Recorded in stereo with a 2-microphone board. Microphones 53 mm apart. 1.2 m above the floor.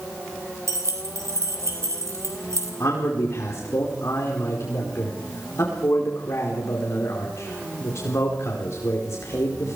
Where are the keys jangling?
70° right (ahead or behind), 3.5 m.